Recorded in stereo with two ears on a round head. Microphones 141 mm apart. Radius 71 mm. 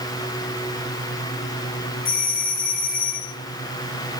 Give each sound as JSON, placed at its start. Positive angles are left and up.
{"t": 2.0, "sound": "a doorbell", "side_deg": 60, "distance_m": 3.0}